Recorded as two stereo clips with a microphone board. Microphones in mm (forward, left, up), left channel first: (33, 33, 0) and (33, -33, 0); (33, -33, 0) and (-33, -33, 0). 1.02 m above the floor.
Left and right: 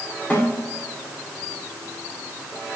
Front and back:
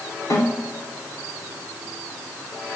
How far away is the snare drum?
About 4 m.